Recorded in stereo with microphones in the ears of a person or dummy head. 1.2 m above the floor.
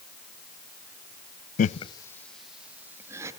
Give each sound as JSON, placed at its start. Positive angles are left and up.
{"t": 1.6, "sound": "laughter", "side_deg": 50, "distance_m": 0.5}